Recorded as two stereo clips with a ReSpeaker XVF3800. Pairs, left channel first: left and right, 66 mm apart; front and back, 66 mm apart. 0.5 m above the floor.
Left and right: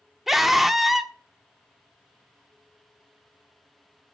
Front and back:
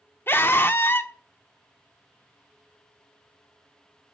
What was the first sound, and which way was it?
A scream, 5° right.